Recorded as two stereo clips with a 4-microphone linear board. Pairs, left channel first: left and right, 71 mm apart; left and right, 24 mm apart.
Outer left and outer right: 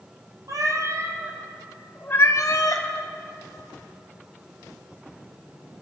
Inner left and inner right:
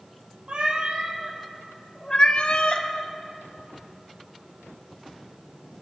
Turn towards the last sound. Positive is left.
turn(degrees=60)  # may be behind; listen again after turning